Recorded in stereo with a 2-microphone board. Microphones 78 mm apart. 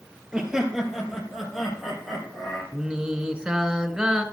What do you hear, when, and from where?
0.3 s laughter: 10° right (ahead or behind), 2.5 m; by 2.6 s centre (ahead or behind), 5.5 m
2.7 s singing: 10° right (ahead or behind), 1.1 m